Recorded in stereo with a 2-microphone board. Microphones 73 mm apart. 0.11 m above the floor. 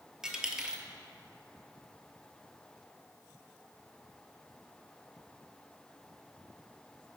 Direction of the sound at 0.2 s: 10° right (ahead or behind).